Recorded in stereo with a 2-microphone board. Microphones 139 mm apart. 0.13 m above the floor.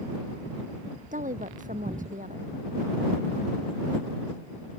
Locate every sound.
1.1 s a woman speaking: 65° right (ahead or behind)